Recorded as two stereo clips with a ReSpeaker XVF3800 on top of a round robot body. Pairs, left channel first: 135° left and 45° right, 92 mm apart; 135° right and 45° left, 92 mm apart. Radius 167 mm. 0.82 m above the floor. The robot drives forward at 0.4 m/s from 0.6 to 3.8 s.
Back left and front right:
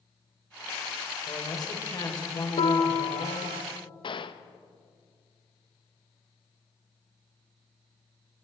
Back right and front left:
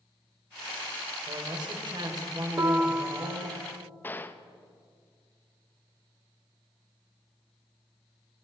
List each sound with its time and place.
1.3 s a man speaking: 85° left, 3.5 m; by 3.6 s 100° left, 3.5 m
2.6 s a piano: 105° left, 0.8 m; by 3.6 s 130° left, 1.0 m
4.0 s a gunshot: 155° left, 1.0 m